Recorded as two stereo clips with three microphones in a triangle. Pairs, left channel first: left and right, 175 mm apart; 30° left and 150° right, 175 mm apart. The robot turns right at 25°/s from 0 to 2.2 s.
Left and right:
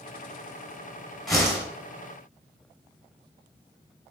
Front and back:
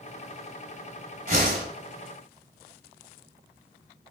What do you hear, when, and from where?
1.3 s a whoosh: 175° left, 5.5 m; by 1.6 s 175° right, 5.5 m